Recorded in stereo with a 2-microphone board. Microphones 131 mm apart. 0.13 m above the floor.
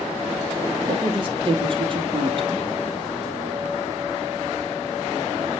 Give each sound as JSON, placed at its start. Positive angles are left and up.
{"t": 0.9, "sound": "a woman speaking", "side_deg": -40, "distance_m": 3.5}